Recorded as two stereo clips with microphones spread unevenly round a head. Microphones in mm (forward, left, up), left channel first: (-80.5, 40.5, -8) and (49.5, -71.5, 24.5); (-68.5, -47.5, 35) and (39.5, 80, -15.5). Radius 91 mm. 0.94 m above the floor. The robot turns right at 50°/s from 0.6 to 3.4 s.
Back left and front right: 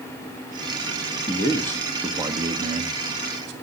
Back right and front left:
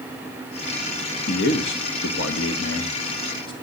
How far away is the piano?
No piano in this recording.